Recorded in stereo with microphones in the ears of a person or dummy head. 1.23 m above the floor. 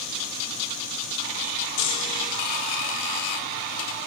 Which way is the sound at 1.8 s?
65° left (ahead or behind).